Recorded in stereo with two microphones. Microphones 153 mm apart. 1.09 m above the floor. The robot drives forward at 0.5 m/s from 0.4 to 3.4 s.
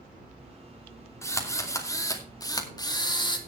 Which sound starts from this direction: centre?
A drill, at 1.2 s.